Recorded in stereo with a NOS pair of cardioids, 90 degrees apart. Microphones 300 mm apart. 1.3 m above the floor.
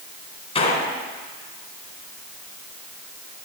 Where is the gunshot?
20° left, 3.5 m.